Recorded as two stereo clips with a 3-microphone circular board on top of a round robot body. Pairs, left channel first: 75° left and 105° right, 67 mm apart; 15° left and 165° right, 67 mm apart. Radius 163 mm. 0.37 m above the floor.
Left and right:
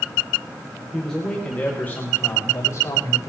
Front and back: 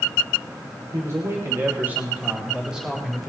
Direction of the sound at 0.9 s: 160° left.